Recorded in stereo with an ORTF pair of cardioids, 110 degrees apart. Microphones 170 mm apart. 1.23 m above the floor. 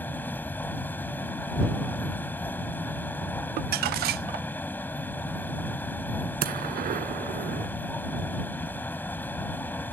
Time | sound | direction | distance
0.0 | a machine running | 10° left | ?
3.6 | crumpling | 65° right | ?
6.4 | a gunshot | 60° right | ?